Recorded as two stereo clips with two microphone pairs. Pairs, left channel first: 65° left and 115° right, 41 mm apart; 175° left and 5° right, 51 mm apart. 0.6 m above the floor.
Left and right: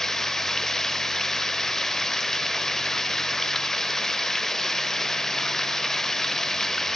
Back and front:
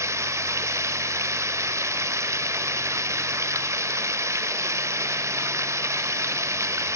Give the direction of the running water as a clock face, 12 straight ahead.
12 o'clock.